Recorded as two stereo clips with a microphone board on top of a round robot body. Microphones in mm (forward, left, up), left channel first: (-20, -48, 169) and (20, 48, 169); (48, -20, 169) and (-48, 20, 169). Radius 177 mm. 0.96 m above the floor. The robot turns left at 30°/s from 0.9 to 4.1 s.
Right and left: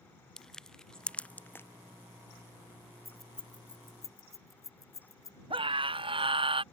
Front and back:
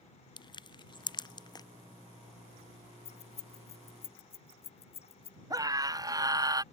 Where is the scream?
105° left.